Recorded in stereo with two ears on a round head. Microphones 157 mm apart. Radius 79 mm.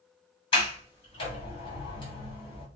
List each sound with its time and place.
0.5 s a sliding door: 30° left (ahead or behind), 3 m